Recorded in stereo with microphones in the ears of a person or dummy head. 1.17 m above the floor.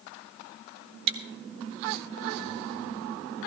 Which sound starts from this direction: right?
Chewing, at 1.1 s.